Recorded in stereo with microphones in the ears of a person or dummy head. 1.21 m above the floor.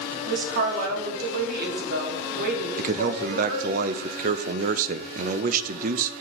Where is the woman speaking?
60° right (ahead or behind), 2 m.